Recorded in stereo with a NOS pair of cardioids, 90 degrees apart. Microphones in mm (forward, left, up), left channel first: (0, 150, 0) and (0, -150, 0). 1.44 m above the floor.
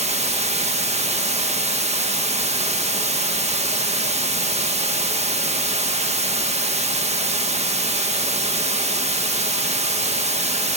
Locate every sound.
0.0 s running water: 20° right, 1.5 m